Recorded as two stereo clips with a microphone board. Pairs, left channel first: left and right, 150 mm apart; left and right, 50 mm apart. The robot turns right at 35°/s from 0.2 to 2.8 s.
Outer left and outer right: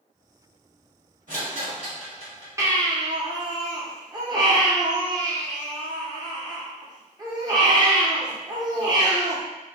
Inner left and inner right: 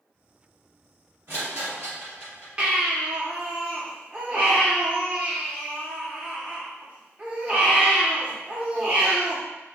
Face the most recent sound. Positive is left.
turn(degrees=-30)  # may be behind; listen again after turning